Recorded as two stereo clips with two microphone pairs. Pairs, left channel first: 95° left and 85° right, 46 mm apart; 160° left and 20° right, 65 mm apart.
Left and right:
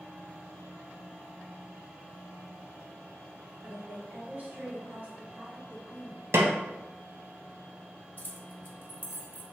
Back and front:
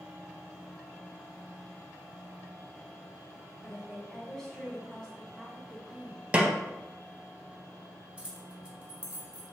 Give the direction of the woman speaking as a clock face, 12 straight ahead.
4 o'clock.